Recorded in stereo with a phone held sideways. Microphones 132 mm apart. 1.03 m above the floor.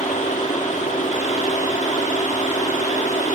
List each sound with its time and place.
0.0 s a fan: 70° left (ahead or behind), 1.5 m